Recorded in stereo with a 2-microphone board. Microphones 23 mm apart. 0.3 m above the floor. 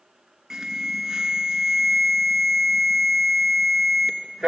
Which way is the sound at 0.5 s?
20° right (ahead or behind).